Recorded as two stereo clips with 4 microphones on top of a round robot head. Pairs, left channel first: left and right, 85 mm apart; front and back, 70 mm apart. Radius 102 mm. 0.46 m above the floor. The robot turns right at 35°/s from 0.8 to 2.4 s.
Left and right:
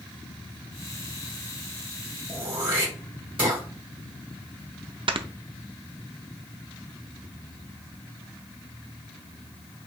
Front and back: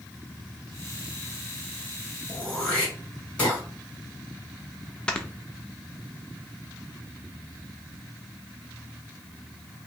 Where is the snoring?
75° right, 0.5 m.